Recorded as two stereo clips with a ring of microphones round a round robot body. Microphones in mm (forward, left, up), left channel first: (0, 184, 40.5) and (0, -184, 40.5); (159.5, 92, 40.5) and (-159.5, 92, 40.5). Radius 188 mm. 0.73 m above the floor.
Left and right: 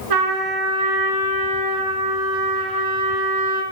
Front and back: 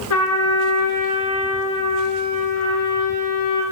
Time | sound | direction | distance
0.1 | a trumpet | 55° right | 3 m